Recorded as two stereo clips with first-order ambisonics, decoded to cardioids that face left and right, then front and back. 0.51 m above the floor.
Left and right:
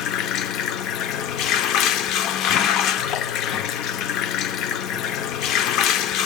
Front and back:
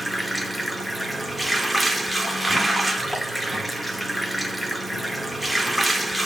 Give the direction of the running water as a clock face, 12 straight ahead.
9 o'clock.